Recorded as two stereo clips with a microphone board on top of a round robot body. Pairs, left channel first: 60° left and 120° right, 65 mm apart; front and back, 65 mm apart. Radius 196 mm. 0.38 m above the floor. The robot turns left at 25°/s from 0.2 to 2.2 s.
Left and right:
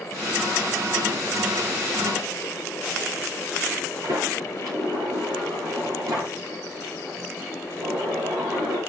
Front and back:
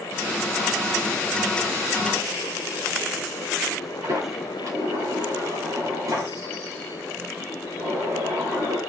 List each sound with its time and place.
4.0 s a sliding door: 145° right, 9.5 m